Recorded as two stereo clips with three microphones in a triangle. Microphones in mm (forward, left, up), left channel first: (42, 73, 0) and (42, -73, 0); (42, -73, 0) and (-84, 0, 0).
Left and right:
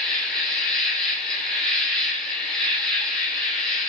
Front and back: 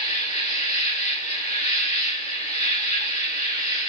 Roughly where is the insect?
Ahead.